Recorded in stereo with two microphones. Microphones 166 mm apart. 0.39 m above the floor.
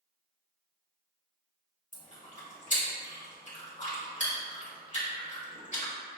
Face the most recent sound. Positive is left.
turn(degrees=45)  # may be behind; listen again after turning